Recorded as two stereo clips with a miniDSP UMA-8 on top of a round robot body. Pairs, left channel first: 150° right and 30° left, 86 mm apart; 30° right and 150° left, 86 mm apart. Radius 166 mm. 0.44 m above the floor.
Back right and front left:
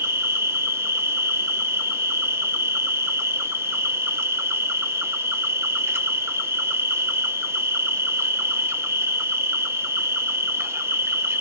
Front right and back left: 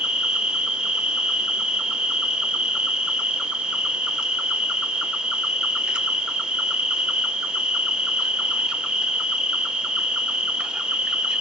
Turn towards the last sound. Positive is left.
turn(degrees=75)